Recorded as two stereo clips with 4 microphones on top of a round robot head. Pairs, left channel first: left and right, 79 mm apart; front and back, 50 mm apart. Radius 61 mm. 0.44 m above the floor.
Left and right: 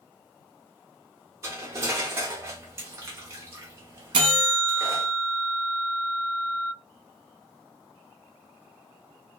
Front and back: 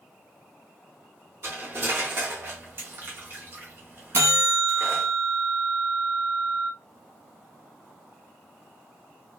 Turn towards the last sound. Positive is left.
turn(degrees=-125)